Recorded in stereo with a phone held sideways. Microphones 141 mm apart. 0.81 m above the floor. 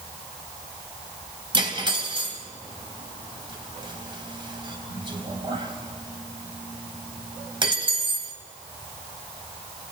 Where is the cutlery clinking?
35° right (ahead or behind), 3 m.